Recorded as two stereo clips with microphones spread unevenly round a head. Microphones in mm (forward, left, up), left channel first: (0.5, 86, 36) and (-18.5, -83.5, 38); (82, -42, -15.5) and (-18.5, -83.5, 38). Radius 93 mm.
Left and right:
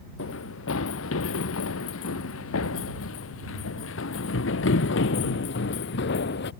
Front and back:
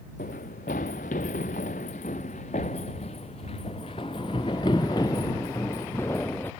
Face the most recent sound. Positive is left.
turn(degrees=110)